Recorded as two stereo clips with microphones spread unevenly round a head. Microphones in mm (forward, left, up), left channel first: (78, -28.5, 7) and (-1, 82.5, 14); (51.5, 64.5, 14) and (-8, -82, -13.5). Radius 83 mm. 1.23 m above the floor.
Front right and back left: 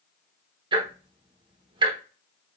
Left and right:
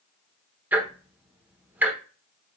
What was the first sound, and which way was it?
Ticking, 160° left.